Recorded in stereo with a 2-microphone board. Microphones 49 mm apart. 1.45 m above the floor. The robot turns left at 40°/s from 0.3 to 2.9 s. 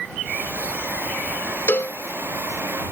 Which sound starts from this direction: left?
A cowbell, at 1.7 s.